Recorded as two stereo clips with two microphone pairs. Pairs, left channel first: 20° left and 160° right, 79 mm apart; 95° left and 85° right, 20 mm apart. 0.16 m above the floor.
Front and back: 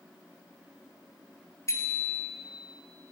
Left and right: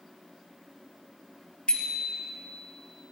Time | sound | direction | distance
1.7 | a bicycle bell | 70° left | 2.5 m